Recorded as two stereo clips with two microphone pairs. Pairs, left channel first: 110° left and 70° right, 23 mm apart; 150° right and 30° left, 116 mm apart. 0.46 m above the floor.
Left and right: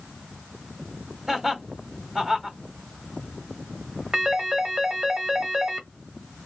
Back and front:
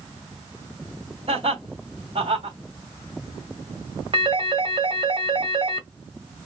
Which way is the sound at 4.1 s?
15° right.